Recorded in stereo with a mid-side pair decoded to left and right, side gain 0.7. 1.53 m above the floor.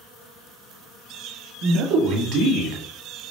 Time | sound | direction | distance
1.6 | a man speaking | 55° right | 1.6 m